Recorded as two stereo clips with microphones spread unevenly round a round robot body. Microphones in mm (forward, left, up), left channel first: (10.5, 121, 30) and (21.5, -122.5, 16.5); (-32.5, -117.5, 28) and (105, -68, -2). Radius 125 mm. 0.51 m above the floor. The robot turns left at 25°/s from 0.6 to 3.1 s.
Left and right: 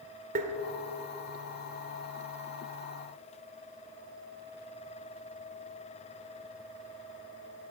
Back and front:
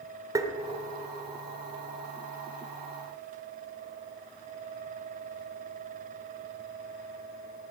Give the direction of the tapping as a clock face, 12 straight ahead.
1 o'clock.